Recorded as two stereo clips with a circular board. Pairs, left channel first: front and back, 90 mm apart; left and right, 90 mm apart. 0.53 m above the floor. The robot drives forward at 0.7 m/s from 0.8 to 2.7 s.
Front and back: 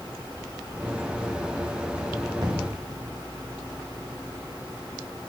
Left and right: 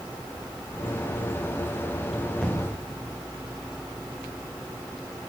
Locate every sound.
2.4 s an explosion: 170° left, 1.6 m